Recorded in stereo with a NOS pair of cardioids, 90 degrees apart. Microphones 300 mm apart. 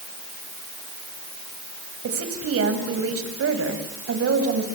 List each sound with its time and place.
2.0 s a woman speaking: 50° right, 7 m